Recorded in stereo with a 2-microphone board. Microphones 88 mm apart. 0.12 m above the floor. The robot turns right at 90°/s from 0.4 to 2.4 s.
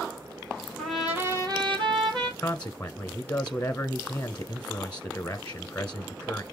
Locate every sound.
0.8 s a trumpet: 170° left, 3.5 m; by 2.3 s 55° right, 3.5 m
2.4 s a man speaking: 20° left (ahead or behind), 1.0 m